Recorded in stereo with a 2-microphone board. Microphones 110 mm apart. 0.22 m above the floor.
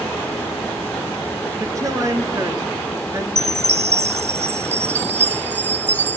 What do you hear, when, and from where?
1.6 s a woman speaking: 30° right (ahead or behind), 3.5 m
3.4 s a chime: 85° right, 0.9 m